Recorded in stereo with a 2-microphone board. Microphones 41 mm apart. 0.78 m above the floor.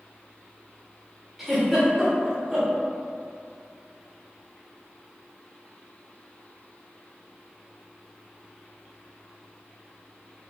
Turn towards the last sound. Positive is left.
turn(degrees=-5)  # may be behind; listen again after turning